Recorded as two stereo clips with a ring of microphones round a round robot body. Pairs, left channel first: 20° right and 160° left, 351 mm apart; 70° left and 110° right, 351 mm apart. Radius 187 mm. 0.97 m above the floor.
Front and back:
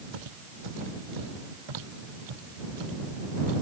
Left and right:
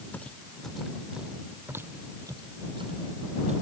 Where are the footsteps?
155° left; by 3.6 s 175° left.